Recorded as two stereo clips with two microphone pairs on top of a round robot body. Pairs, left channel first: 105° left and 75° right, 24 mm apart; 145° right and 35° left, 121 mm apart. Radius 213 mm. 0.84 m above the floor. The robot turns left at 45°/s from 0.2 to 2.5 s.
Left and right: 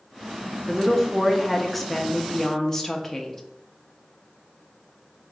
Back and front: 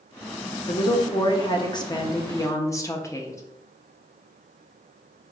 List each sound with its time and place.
0.7 s a woman speaking: 130° right, 0.8 m; by 3.4 s 145° left, 0.8 m